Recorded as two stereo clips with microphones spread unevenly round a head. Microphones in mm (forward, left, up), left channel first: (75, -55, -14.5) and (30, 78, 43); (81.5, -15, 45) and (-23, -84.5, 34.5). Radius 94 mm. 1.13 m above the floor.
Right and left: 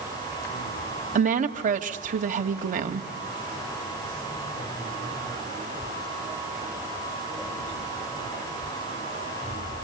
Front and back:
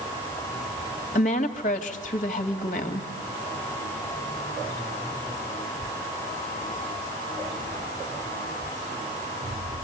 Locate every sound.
1.1 s a woman speaking: 75° left, 2 m